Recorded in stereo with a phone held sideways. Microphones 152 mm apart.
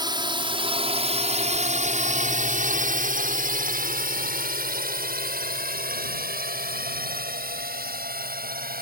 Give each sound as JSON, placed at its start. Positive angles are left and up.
{"t": 0.0, "sound": "a drone", "side_deg": -30}